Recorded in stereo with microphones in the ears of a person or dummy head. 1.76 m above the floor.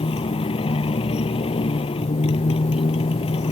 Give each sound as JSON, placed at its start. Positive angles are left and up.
{"t": 0.0, "sound": "a motorcycle", "side_deg": 25}